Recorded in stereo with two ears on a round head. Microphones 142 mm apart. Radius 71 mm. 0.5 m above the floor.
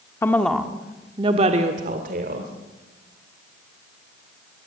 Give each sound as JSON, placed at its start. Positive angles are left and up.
{"t": 0.2, "sound": "a woman speaking", "side_deg": 15, "distance_m": 1.4}